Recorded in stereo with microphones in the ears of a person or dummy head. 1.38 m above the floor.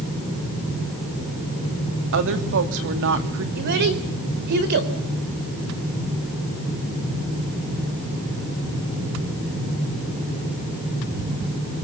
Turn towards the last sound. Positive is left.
turn(degrees=-55)  # may be behind; listen again after turning